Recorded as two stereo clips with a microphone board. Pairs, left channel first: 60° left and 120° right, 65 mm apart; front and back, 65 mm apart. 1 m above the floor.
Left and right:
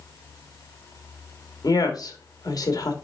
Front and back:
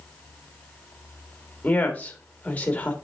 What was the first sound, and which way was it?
A woman speaking, 65° left.